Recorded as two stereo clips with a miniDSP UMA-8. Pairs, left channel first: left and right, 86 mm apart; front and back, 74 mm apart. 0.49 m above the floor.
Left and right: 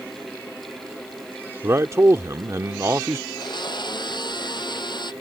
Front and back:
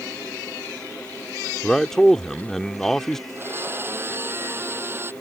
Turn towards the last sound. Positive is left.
turn(degrees=120)